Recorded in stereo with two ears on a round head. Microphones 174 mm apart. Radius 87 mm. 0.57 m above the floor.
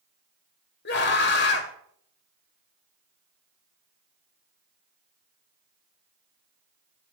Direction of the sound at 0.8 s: 60° left (ahead or behind).